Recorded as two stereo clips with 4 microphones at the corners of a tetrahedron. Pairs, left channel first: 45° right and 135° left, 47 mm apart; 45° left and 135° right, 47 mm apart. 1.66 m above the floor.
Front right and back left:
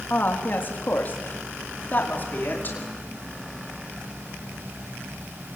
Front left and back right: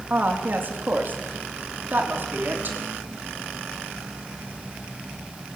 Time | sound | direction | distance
0.1 | a woman speaking | 90° right | 3.5 m